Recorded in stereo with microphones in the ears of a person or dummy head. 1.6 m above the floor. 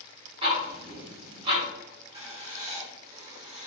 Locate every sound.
0.4 s ticking: 30° right (ahead or behind), 0.9 m
2.1 s writing: 30° right (ahead or behind), 0.8 m